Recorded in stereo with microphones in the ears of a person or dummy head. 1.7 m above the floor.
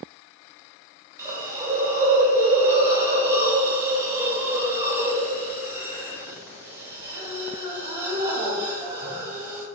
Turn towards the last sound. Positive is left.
turn(degrees=-15)  # may be behind; listen again after turning